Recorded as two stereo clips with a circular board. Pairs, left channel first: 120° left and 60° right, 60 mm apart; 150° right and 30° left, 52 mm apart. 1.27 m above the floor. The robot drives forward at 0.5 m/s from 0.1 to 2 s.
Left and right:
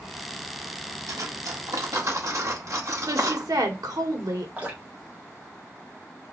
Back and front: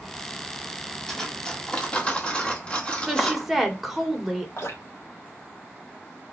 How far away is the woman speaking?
About 1.5 m.